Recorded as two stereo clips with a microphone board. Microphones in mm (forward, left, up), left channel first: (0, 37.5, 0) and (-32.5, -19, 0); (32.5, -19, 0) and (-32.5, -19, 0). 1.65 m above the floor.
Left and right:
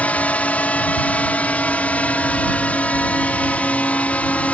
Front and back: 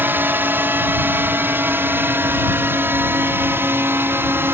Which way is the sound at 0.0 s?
125° left.